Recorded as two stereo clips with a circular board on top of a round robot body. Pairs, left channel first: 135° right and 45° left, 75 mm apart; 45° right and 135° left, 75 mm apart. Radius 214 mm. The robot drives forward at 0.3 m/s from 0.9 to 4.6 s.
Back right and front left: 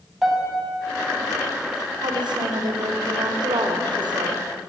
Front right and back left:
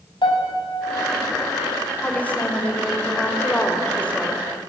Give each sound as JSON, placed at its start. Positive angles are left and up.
{"t": 0.2, "sound": "a piano", "azimuth_deg": -40, "distance_m": 5.0}
{"t": 2.0, "sound": "a woman speaking", "azimuth_deg": 25, "distance_m": 4.5}